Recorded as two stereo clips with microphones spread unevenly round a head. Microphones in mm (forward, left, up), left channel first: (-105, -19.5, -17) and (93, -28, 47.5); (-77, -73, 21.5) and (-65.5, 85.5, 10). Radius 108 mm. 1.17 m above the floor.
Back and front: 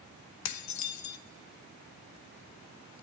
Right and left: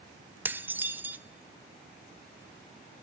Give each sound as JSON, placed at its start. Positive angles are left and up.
{"t": 0.5, "sound": "dishes clattering", "azimuth_deg": 165, "distance_m": 0.9}